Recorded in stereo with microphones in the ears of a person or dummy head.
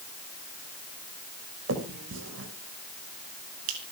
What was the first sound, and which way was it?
A finger snap, 80° right.